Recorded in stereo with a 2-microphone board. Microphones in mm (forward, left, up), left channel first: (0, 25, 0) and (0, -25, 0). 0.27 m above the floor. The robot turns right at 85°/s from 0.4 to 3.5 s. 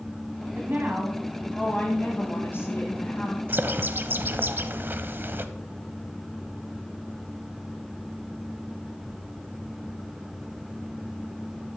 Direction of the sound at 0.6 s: 80° right.